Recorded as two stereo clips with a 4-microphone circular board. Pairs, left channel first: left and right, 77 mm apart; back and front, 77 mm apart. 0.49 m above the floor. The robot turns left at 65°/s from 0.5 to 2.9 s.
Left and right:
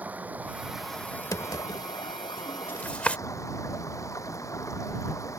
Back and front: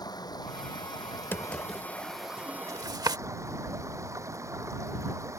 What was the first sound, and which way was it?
Running water, 160° right.